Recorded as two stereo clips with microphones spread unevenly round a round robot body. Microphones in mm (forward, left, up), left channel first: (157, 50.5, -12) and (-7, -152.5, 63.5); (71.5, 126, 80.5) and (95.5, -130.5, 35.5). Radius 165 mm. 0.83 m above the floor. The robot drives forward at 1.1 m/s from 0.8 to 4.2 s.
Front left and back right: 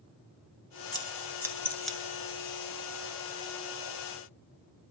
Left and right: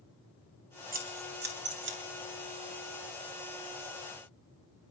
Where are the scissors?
25° right, 3 m; by 2.0 s 40° right, 1.9 m.